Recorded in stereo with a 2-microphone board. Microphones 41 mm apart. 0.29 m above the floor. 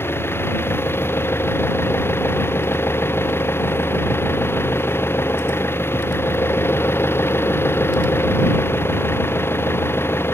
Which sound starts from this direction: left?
An engine running, at 0.0 s.